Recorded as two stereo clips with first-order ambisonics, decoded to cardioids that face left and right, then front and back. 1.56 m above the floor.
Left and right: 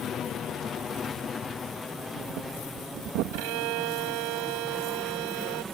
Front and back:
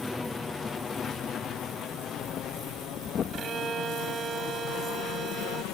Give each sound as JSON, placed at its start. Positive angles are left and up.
{"t": 0.0, "sound": "an aircraft", "azimuth_deg": 75}
{"t": 2.0, "sound": "breathing", "azimuth_deg": -65}
{"t": 3.3, "sound": "a violin", "azimuth_deg": -110}